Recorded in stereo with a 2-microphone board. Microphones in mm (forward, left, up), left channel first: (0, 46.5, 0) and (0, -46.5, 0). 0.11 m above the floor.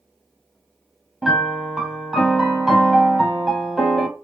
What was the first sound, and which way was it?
A piano, 5° right (ahead or behind).